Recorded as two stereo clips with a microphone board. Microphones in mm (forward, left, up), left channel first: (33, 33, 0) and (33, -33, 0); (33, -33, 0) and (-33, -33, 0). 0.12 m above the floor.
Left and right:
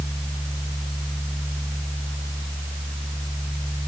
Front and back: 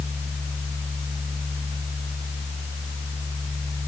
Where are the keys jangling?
I don't hear keys jangling.